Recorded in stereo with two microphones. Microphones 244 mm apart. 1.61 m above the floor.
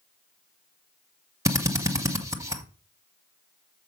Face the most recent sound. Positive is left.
turn(degrees=-10)  # may be behind; listen again after turning